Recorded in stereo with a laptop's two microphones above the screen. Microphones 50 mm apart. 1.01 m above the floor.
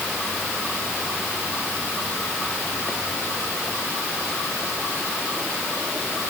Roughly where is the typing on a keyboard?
I don't hear typing on a keyboard.